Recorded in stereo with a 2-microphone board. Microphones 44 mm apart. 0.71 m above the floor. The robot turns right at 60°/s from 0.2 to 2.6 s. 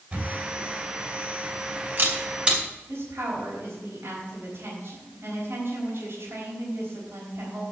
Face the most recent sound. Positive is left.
turn(degrees=-60)  # may be behind; listen again after turning